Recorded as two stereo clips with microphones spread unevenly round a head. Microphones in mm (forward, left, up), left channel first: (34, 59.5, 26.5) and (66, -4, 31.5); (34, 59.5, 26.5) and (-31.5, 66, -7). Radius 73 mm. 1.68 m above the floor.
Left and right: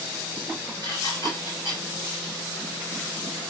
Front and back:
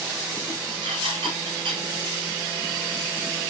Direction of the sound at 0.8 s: 170° right.